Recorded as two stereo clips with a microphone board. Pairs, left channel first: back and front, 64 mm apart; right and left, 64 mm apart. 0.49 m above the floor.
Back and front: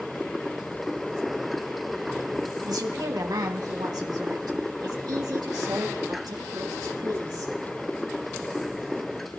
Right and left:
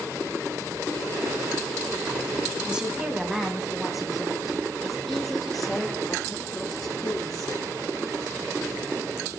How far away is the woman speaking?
About 2.5 m.